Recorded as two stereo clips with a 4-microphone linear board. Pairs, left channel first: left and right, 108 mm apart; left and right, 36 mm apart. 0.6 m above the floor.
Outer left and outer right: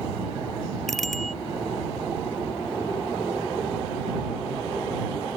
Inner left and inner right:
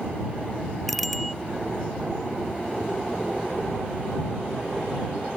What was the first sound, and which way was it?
A bicycle bell, centre (ahead or behind).